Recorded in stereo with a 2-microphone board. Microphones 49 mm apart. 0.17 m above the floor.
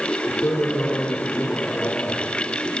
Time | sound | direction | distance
0.3 | a man speaking | 55° left (ahead or behind) | 5.5 m